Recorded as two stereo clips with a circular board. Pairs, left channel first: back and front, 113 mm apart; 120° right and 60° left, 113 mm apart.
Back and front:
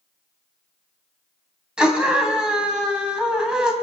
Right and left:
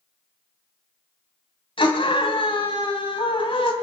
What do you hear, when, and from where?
1.8 s a scream: 85° right, 3 m